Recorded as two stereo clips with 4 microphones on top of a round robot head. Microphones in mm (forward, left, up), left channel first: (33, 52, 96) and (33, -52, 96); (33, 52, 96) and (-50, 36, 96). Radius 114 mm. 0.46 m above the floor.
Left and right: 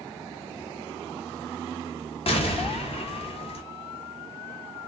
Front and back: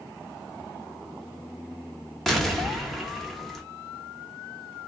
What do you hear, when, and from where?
2.3 s an explosion: 95° left, 1.0 m